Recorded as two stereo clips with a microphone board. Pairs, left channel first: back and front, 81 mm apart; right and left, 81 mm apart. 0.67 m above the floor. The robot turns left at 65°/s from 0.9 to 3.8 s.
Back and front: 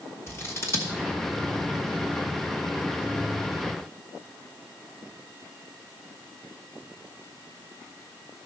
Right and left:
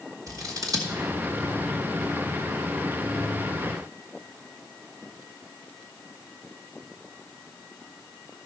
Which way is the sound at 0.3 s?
130° left.